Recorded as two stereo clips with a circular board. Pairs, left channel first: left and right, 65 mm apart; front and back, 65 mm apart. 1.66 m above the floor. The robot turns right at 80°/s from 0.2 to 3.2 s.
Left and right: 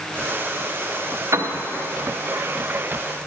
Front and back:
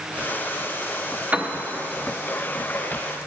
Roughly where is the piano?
Behind right.